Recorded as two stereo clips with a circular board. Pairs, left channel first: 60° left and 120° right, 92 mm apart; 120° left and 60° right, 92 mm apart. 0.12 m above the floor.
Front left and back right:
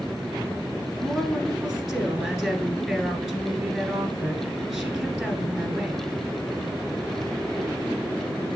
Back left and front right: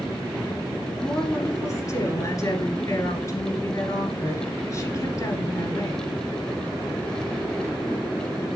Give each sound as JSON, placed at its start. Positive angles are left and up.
{"t": 1.0, "sound": "a woman speaking", "azimuth_deg": 155, "distance_m": 1.8}